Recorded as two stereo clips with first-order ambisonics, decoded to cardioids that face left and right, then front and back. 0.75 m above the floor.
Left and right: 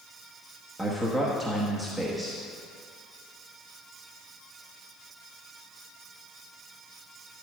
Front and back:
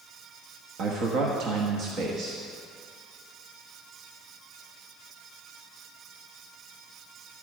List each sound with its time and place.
0.8 s a man speaking: straight behind, 1.1 m